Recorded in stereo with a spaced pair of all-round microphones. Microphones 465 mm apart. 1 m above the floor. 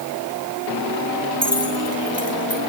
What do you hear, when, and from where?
1.4 s keys jangling: 30° right (ahead or behind), 9 m